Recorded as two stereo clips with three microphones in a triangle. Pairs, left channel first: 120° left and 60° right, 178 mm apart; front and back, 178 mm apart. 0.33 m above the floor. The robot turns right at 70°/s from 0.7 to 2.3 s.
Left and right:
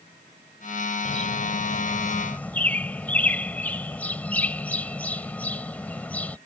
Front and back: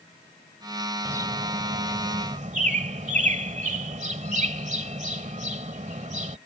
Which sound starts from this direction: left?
A bird, at 1.1 s.